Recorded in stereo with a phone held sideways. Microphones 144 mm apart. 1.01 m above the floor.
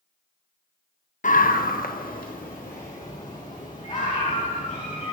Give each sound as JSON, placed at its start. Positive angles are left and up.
{"t": 1.2, "sound": "a scream", "side_deg": 65, "distance_m": 0.6}